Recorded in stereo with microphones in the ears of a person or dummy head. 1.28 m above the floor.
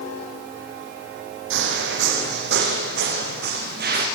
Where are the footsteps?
70° right (ahead or behind), 3.5 m; by 4.0 s 65° right (ahead or behind), 6.5 m.